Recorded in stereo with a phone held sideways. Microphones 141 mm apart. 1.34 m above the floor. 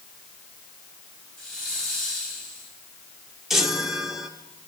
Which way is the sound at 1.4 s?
5° left (ahead or behind).